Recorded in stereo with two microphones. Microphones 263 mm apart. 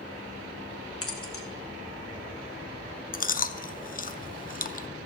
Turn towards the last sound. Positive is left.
turn(degrees=35)  # may be behind; listen again after turning